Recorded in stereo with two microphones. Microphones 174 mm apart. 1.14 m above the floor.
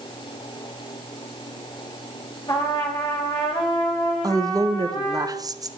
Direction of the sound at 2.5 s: 30° left (ahead or behind).